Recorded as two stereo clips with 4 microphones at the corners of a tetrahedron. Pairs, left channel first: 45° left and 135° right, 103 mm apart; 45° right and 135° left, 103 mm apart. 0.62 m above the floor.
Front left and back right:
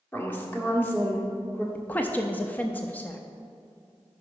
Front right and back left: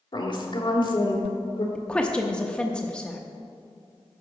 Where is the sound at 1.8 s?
10° left, 0.6 m.